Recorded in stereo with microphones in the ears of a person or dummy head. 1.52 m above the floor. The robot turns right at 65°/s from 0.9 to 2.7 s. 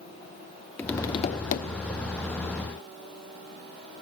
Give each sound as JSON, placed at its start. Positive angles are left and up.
{"t": 0.8, "sound": "tapping", "azimuth_deg": 10, "distance_m": 0.6}